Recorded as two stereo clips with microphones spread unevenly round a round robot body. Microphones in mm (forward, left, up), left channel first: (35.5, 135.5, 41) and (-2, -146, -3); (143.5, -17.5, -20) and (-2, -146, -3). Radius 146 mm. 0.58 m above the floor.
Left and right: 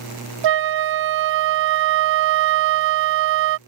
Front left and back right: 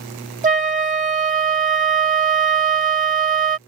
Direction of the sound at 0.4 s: 85° right.